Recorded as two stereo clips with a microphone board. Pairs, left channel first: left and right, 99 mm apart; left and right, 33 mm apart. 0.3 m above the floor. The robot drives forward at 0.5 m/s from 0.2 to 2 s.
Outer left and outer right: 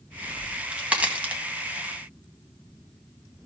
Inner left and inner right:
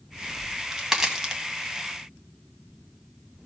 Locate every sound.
0.4 s a crack: 10° right (ahead or behind), 2.0 m; by 1.4 s 15° right (ahead or behind), 1.5 m